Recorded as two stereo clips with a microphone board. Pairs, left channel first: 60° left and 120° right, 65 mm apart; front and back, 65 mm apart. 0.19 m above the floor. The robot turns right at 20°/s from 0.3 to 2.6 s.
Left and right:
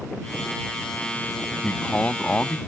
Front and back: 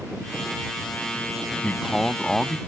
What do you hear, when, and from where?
1.6 s a man speaking: 65° left; by 2.6 s 85° left